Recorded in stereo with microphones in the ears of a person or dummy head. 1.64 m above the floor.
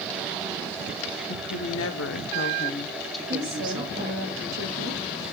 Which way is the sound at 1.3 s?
85° left.